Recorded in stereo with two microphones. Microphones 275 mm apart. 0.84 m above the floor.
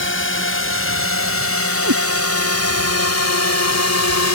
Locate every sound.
0.0 s a drone: 45° left (ahead or behind); by 4.3 s 65° left (ahead or behind)
1.8 s a cat meowing: 75° right (ahead or behind)